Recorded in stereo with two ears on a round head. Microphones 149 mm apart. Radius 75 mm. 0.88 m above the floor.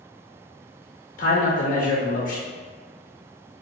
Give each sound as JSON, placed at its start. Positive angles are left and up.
{"t": 1.2, "sound": "a man speaking", "side_deg": 55, "distance_m": 0.6}